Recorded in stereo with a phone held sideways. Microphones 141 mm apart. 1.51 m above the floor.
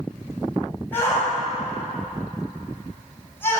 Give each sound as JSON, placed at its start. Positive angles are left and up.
{"t": 0.9, "sound": "a shout", "side_deg": 15, "distance_m": 8.0}